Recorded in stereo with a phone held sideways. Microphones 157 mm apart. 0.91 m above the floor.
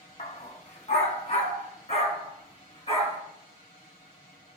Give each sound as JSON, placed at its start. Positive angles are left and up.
{"t": 0.2, "sound": "a dog barking", "side_deg": 50, "distance_m": 1.5}